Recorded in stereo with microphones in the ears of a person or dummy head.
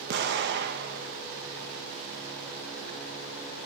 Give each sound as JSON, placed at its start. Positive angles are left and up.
{"t": 0.1, "sound": "an explosion", "side_deg": -60, "distance_m": 1.5}